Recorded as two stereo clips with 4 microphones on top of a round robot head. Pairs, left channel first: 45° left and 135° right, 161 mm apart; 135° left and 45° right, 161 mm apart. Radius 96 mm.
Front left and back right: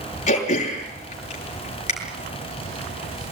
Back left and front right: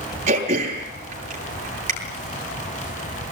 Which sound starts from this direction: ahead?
Throat clearing, at 0.3 s.